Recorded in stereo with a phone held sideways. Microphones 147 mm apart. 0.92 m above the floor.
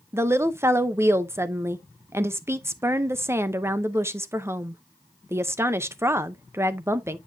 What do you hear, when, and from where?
0.1 s a woman speaking: 15° right (ahead or behind), 0.6 m